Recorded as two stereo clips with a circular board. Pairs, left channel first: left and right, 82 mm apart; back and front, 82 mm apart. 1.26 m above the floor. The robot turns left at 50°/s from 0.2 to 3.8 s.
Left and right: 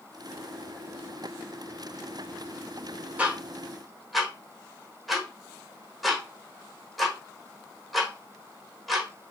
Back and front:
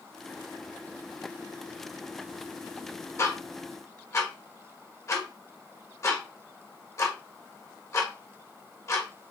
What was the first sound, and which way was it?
Ticking, 150° right.